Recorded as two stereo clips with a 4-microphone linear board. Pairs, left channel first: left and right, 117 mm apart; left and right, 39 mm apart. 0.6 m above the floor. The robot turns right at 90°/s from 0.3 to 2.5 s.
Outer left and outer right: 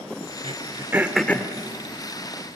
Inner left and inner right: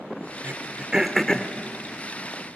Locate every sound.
0.4 s throat clearing: 60° right (ahead or behind), 0.9 m; by 1.5 s 30° left (ahead or behind), 0.9 m